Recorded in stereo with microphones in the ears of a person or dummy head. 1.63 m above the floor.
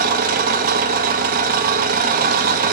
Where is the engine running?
55° right (ahead or behind), 0.7 m.